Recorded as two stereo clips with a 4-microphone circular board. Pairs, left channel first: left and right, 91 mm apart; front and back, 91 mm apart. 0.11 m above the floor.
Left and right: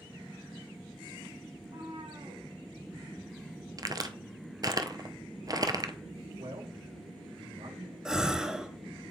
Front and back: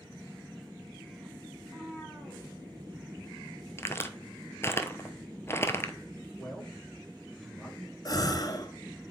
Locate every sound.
1.6 s a cat meowing: 90° right, 3 m
3.8 s a crack: 55° right, 0.8 m
6.4 s a man speaking: 85° right, 3.5 m
8.1 s a gasp: 10° right, 0.7 m